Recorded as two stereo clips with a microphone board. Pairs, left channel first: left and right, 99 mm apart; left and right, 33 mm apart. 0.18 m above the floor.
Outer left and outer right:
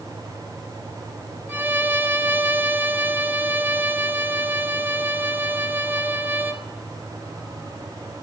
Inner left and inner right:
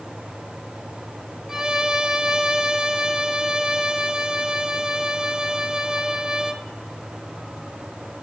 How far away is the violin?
About 0.6 m.